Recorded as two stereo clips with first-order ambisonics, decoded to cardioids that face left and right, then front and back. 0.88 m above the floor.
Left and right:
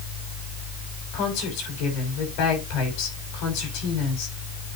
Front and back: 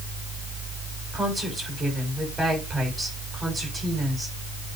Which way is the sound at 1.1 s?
95° left.